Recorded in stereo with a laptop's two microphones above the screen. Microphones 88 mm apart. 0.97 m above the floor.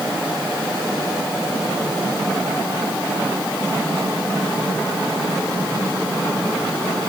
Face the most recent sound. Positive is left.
No sound to turn to.